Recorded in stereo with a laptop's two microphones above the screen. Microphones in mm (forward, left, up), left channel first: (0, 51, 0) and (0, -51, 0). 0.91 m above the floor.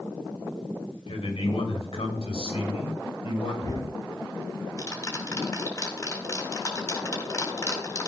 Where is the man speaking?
75° left (ahead or behind), 3 m; by 3.9 s 80° left, 4 m.